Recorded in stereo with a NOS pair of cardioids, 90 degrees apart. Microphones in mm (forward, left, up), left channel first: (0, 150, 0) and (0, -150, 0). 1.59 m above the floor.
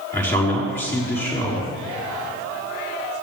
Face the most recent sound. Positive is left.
turn(degrees=5)